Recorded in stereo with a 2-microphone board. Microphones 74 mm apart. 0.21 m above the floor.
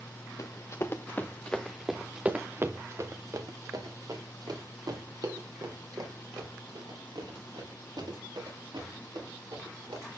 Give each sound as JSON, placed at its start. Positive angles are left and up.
{"t": 0.4, "sound": "running footsteps", "side_deg": 50, "distance_m": 1.3}